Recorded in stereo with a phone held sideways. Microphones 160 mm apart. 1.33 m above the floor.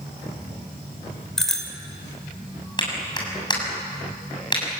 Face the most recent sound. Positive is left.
turn(degrees=30)  # may be behind; listen again after turning